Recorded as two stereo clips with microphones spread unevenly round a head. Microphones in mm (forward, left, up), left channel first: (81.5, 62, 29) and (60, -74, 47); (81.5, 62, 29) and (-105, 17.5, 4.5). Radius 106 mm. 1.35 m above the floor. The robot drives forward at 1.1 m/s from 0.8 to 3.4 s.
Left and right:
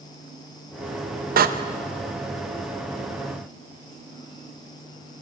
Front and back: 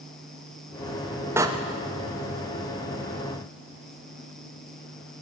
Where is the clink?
I don't hear a clink.